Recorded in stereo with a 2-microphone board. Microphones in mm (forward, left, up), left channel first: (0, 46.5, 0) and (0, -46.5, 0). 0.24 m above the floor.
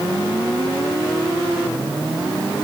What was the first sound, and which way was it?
Only background noise.